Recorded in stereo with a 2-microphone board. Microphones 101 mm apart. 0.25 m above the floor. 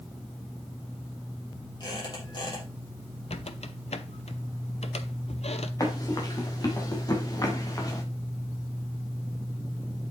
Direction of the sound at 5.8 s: 35° left (ahead or behind).